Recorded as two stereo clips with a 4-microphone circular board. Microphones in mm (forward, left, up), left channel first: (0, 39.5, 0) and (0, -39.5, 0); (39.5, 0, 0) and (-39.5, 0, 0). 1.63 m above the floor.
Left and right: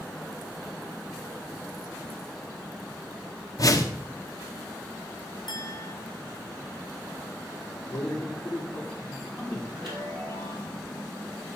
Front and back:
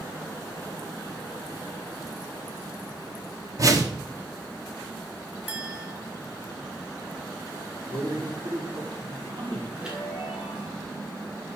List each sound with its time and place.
3.6 s a whoosh: 135° left, 1.0 m
5.5 s a clink: 115° left, 2.5 m
7.9 s a man speaking: 165° left, 6 m
9.8 s a chime: 100° right, 3.5 m